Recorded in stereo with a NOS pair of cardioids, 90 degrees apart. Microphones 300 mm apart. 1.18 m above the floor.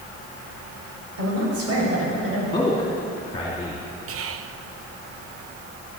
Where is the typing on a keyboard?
No typing on a keyboard in this recording.